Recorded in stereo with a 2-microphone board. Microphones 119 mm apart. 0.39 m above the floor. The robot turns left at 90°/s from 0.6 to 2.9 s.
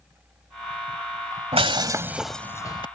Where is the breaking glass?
110° right; by 2.9 s 130° left.